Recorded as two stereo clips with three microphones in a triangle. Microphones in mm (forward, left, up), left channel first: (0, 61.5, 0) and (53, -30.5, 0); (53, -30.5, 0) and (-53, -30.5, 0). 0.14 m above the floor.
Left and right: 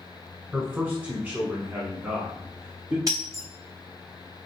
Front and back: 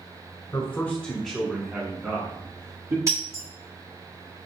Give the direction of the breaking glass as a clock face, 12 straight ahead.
4 o'clock.